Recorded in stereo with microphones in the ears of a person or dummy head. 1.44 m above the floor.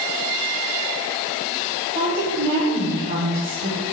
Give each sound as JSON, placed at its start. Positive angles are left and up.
{"t": 1.9, "sound": "a woman speaking", "side_deg": -40, "distance_m": 1.3}